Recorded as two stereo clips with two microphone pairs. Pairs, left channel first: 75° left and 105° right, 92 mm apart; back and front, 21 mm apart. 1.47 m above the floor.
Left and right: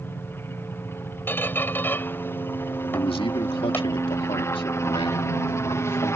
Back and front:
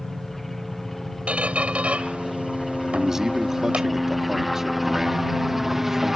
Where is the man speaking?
75° left.